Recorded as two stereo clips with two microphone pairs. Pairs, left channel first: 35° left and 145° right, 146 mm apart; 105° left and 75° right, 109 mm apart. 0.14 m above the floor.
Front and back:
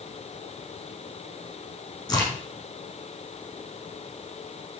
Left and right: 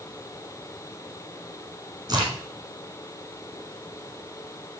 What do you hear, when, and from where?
2.1 s a crack: 30° right, 6.5 m